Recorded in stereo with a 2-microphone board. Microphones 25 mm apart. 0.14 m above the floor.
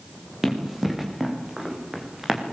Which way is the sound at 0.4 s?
10° right (ahead or behind).